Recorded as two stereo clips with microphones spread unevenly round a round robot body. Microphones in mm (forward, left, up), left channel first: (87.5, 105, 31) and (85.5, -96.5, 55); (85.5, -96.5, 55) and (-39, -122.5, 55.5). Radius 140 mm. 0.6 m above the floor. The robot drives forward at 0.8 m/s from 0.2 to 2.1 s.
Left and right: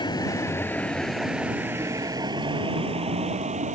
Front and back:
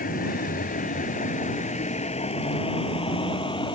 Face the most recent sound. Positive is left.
turn(degrees=-40)